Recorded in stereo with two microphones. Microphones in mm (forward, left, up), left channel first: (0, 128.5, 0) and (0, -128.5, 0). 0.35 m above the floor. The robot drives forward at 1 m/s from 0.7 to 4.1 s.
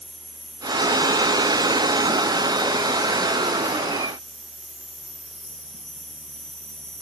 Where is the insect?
40° left (ahead or behind), 4.5 m; by 7.0 s 75° left (ahead or behind), 3 m.